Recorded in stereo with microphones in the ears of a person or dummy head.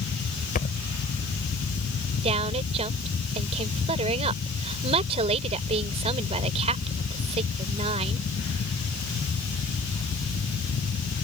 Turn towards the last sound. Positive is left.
turn(degrees=-35)  # may be behind; listen again after turning